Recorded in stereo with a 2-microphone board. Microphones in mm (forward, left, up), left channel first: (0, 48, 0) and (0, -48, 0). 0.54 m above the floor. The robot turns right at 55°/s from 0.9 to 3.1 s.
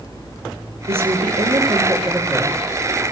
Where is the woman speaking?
90° right, 7.5 m; by 2.6 s 5° left, 7.5 m.